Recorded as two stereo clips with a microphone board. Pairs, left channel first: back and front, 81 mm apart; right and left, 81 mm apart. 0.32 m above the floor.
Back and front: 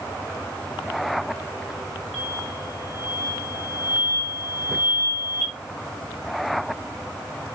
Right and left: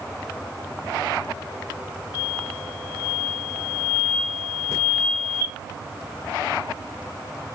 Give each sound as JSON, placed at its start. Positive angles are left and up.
{"t": 2.1, "sound": "an explosion", "azimuth_deg": -90, "distance_m": 1.3}